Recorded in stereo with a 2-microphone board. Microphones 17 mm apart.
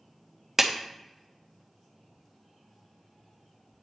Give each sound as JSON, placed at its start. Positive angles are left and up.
{"t": 0.6, "sound": "a clap", "side_deg": -20, "distance_m": 0.7}